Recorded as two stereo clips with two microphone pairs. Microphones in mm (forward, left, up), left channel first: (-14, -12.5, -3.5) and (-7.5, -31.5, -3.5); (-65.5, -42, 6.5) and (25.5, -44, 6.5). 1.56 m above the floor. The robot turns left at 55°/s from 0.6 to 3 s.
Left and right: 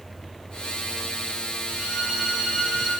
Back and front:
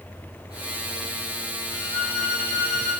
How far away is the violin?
About 7 m.